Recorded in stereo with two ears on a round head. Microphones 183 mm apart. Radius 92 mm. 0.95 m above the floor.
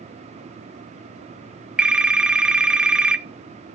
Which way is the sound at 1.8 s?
5° right (ahead or behind).